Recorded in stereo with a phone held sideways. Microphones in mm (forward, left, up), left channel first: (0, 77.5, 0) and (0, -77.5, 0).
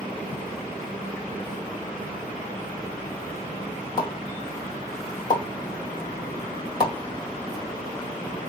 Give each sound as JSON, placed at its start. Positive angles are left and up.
{"t": 4.0, "sound": "a pop", "side_deg": 25, "distance_m": 2.0}